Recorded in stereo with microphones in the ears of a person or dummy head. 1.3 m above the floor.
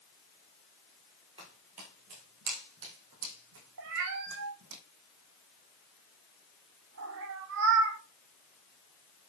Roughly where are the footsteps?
Right.